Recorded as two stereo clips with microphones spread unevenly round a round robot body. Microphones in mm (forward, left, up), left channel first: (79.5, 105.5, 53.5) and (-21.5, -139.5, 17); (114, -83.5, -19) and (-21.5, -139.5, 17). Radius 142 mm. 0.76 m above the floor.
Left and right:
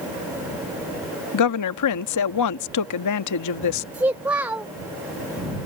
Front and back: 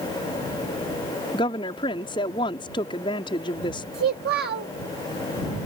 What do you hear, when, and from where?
1.3 s a woman speaking: 80° left
3.9 s a child speaking: 165° left